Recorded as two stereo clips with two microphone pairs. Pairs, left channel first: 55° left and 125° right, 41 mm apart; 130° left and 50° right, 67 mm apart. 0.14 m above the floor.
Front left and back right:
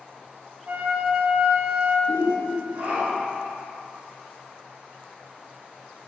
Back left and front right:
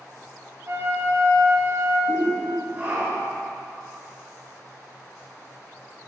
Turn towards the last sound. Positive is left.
turn(degrees=-100)